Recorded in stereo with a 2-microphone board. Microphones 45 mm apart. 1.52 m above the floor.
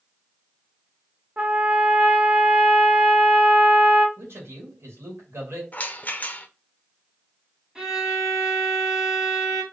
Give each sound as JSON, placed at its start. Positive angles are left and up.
{"t": 1.4, "sound": "a trumpet", "side_deg": -30, "distance_m": 0.7}
{"t": 4.2, "sound": "a man speaking", "side_deg": -65, "distance_m": 2.0}
{"t": 5.7, "sound": "a rattle", "side_deg": 35, "distance_m": 0.6}
{"t": 7.8, "sound": "a violin", "side_deg": -10, "distance_m": 1.7}